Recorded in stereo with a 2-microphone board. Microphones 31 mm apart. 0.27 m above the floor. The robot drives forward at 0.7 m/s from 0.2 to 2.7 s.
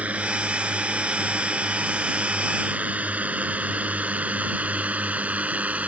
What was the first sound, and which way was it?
A drone, 45° right (ahead or behind).